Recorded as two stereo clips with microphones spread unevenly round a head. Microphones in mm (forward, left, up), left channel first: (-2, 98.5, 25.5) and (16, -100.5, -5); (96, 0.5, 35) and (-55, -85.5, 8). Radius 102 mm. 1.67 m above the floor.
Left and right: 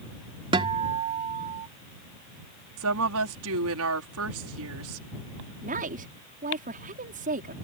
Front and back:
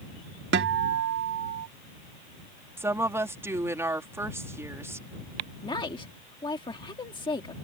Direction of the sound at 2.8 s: 75° right.